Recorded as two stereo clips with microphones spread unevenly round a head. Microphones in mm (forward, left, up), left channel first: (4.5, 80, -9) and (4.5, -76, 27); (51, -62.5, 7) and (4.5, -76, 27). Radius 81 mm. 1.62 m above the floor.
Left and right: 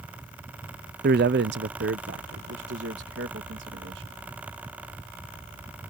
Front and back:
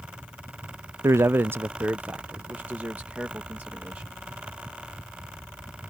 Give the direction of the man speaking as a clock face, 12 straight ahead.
4 o'clock.